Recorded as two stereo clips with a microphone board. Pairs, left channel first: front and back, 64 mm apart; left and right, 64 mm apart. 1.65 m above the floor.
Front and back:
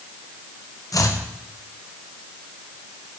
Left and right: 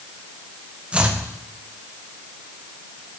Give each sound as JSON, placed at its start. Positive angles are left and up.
{"t": 0.9, "sound": "chopping", "azimuth_deg": -20, "distance_m": 1.1}